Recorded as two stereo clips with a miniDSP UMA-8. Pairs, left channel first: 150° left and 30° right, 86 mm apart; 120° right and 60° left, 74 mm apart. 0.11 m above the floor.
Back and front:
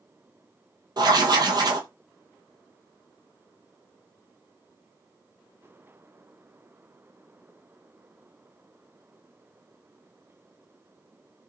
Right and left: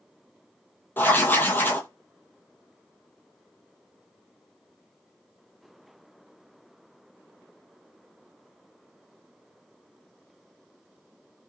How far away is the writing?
About 0.8 m.